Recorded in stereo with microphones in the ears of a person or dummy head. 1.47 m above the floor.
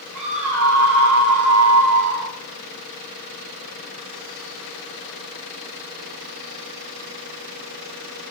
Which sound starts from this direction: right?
A scream, at 0.1 s.